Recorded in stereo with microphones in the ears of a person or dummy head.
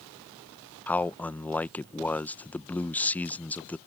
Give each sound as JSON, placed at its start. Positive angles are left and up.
{"t": 0.9, "sound": "a man speaking", "side_deg": 10}